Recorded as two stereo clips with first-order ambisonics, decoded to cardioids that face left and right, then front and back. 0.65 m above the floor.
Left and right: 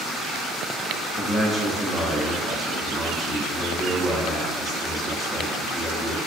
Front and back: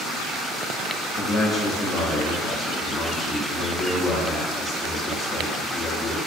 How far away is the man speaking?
About 0.7 m.